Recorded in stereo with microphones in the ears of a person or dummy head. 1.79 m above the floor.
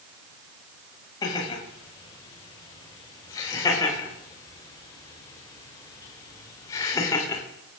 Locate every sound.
1.2 s laughter: 15° left (ahead or behind), 7 m